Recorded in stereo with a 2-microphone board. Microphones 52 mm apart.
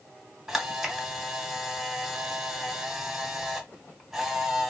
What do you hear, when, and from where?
0.5 s a camera shutter: 5° right (ahead or behind), 1.2 m